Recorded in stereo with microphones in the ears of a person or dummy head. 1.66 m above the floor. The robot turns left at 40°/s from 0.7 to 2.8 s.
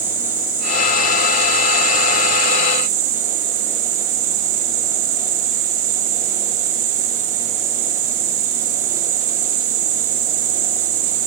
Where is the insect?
10° right, 4 m; by 11.3 s 95° right, 4 m.